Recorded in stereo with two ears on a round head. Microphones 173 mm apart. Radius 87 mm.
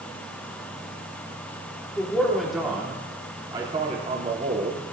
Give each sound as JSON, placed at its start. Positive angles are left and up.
{"t": 2.0, "sound": "a man speaking", "side_deg": 10, "distance_m": 3.0}